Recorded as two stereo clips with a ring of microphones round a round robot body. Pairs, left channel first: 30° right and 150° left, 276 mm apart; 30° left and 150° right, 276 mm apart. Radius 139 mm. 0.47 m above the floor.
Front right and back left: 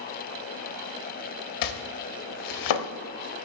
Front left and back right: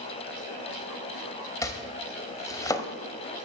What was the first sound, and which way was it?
Chopping, 50° right.